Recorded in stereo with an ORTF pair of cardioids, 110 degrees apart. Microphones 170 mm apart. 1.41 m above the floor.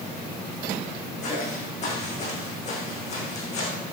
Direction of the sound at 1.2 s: 40° left.